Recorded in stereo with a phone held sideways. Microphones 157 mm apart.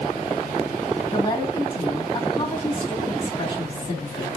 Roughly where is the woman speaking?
Left.